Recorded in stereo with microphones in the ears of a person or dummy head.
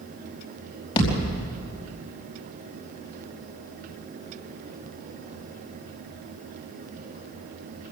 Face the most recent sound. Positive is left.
turn(degrees=35)  # may be behind; listen again after turning